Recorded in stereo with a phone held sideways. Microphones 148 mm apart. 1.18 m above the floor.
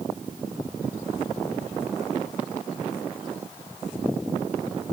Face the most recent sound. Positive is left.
No sound to turn to.